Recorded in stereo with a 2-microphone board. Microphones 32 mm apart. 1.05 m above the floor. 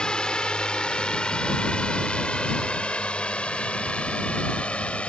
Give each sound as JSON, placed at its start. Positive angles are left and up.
{"t": 0.0, "sound": "a drone", "side_deg": 30}